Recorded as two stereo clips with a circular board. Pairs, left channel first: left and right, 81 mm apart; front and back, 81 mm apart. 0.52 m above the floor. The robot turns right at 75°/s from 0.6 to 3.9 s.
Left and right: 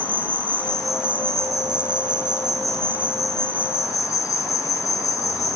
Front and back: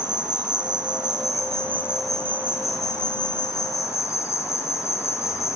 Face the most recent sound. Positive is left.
turn(degrees=50)